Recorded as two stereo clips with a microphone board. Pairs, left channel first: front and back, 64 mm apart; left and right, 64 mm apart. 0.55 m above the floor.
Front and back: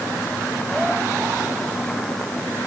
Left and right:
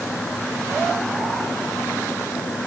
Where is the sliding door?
I don't hear a sliding door.